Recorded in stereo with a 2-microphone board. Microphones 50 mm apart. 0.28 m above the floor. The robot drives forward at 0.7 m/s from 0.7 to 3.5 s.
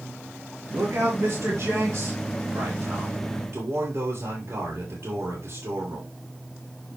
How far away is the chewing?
I don't hear chewing.